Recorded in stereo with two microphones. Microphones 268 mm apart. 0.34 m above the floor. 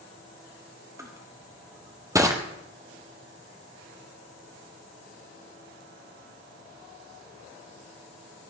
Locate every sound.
1.0 s crushing: 10° right (ahead or behind), 1.5 m